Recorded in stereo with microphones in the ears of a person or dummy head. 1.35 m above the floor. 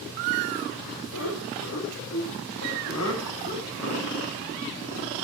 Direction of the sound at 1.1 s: 80° left.